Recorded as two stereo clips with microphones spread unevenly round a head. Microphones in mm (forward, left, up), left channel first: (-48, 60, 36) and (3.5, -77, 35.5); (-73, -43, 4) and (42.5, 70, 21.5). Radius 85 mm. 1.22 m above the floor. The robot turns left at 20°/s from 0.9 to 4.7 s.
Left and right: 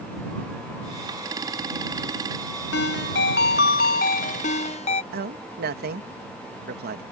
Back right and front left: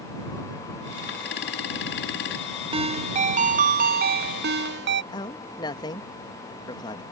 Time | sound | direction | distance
2.7 | a ringtone | 100° left | ?
5.1 | a man speaking | 70° right | ?